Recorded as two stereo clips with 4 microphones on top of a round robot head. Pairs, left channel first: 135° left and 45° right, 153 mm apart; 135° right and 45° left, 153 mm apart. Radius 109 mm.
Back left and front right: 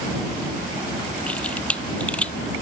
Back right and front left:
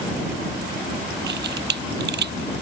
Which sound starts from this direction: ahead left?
A camera shutter, at 1.3 s.